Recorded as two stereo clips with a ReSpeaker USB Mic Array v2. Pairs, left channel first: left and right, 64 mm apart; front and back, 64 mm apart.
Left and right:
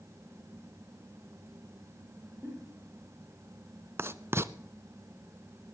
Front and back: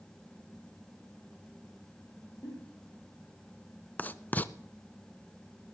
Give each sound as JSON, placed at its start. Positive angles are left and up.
{"t": 2.4, "sound": "a giggle", "azimuth_deg": -25, "distance_m": 4.0}
{"t": 4.0, "sound": "writing", "azimuth_deg": -55, "distance_m": 0.5}